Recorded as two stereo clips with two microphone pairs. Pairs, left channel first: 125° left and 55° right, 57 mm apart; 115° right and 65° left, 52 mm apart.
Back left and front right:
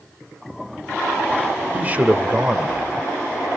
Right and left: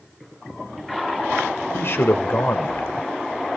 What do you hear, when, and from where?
1.7 s a man speaking: 105° right, 1.4 m